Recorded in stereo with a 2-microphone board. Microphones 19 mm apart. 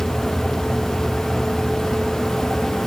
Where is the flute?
No flute in this recording.